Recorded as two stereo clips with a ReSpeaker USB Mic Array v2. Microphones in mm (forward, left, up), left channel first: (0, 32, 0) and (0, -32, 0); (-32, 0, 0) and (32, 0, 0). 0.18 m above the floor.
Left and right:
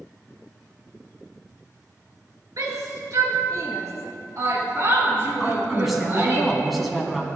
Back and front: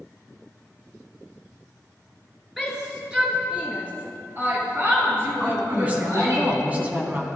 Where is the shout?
90° right, 3 m; by 6.4 s 35° right, 4.5 m.